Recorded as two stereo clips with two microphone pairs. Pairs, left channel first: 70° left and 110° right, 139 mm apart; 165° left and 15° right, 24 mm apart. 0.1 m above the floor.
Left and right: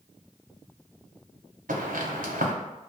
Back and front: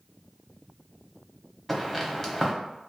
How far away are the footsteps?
About 0.8 m.